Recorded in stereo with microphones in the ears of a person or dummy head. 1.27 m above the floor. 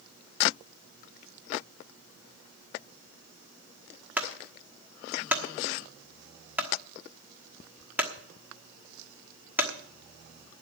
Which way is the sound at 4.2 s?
10° right (ahead or behind).